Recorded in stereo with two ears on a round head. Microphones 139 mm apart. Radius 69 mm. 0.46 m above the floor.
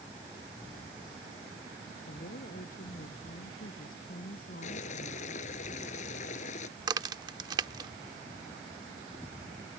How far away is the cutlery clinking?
No cutlery clinking in this recording.